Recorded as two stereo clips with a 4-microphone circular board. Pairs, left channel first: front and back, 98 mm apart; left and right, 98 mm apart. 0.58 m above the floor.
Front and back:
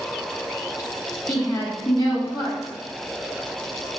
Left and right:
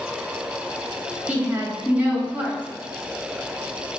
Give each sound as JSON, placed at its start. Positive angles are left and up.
{"t": 1.3, "sound": "a woman speaking", "azimuth_deg": -25, "distance_m": 0.8}